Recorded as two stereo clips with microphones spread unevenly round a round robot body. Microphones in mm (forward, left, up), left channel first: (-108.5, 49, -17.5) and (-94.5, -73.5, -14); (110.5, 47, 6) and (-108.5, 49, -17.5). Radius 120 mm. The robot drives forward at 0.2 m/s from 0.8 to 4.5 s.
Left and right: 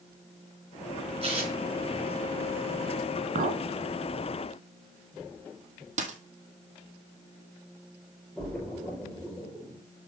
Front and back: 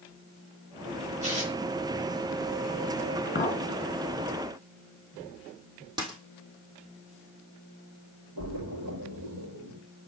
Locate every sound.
1.2 s tearing paper: 120° right, 4 m
3.4 s a clink: 55° right, 1.6 m; by 3.6 s 60° right, 1.6 m
6.0 s a dropped coin: 105° right, 1.6 m
8.4 s a splash: straight behind, 5.5 m